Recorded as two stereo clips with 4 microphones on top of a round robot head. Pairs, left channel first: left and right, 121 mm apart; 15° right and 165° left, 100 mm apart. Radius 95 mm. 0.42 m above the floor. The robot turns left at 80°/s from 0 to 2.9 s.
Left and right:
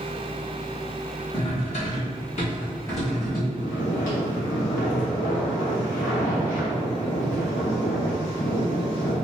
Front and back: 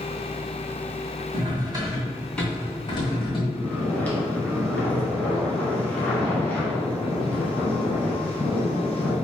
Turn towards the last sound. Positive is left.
turn(degrees=60)